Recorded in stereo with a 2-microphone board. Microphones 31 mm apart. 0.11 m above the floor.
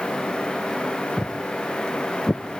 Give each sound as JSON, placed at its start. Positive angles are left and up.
{"t": 1.2, "sound": "footsteps", "side_deg": -30, "distance_m": 0.8}